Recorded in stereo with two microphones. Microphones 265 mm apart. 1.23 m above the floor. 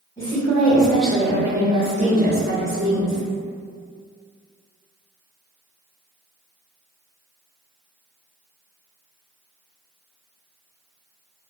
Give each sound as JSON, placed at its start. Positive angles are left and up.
{"t": 0.2, "sound": "a woman speaking", "side_deg": 10, "distance_m": 1.4}